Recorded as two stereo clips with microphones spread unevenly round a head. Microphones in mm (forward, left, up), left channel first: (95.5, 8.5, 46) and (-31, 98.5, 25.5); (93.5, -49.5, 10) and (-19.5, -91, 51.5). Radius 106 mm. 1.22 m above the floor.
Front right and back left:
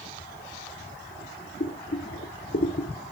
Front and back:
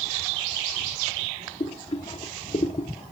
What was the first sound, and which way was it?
Boiling, 40° right.